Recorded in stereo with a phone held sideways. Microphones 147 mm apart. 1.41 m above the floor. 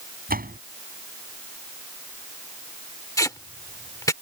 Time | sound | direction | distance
0.3 | a door slam | 85° right | ?
3.2 | tape being pulled | 20° left (ahead or behind) | ?